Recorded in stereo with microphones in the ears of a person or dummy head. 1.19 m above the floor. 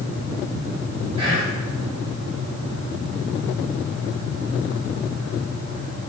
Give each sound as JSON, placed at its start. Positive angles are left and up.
{"t": 1.2, "sound": "whispering", "side_deg": -30, "distance_m": 1.4}